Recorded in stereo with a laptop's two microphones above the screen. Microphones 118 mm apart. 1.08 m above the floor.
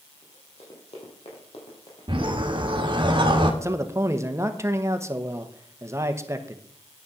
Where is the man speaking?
25° right (ahead or behind), 1.2 m.